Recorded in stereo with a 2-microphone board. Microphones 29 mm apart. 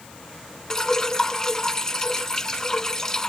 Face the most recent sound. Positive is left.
turn(degrees=15)  # may be behind; listen again after turning